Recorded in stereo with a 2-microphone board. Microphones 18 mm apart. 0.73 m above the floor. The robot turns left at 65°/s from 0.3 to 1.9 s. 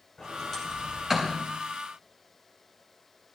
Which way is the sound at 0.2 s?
30° left (ahead or behind).